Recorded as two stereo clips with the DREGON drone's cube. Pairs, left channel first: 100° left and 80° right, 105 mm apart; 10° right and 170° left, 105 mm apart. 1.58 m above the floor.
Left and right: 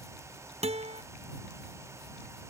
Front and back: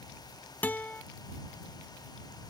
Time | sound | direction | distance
0.6 | a guitar | 85° right | ?